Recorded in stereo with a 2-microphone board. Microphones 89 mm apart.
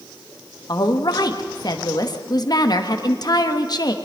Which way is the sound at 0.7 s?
45° left (ahead or behind).